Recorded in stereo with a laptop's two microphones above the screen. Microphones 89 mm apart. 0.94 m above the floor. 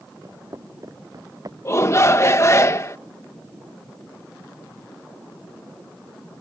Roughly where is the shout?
Left.